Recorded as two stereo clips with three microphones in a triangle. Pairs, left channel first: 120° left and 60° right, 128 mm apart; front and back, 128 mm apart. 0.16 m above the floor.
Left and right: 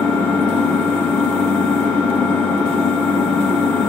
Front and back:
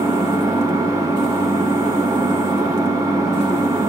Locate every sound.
0.0 s an engine running: straight behind, 0.9 m